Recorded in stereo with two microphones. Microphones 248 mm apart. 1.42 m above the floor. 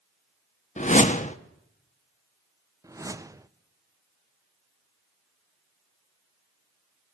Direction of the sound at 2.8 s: 15° right (ahead or behind).